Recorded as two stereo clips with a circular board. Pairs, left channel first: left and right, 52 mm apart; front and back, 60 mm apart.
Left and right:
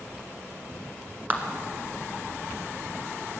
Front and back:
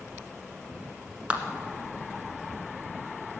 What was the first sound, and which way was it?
A clap, 120° right.